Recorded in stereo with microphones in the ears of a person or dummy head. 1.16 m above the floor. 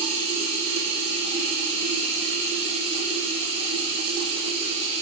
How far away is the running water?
About 9.5 m.